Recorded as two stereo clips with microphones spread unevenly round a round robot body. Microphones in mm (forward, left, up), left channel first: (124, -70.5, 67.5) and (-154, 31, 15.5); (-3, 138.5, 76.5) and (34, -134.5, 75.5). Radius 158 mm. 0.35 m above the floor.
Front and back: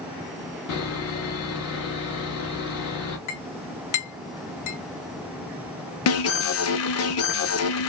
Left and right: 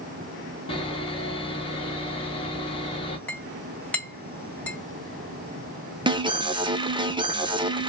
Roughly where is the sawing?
Ahead left.